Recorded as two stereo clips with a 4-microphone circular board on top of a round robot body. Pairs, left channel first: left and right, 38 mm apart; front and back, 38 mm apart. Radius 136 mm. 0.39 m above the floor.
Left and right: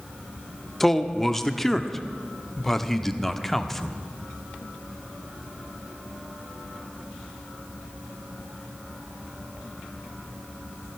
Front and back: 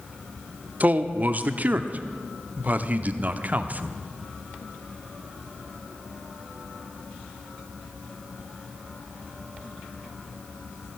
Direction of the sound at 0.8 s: 165° left.